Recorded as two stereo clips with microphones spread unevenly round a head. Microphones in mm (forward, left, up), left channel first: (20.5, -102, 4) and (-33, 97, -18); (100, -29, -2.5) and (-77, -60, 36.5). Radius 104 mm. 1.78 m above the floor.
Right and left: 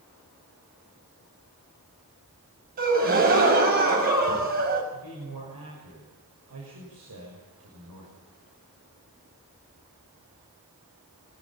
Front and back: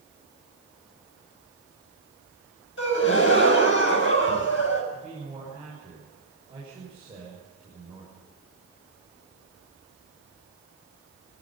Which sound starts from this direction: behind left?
A man speaking, at 4.9 s.